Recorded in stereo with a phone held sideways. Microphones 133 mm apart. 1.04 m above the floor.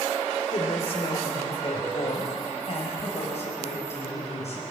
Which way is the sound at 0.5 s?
45° left (ahead or behind).